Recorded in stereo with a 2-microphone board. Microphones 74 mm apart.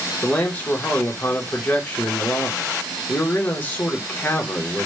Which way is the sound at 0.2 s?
25° left (ahead or behind).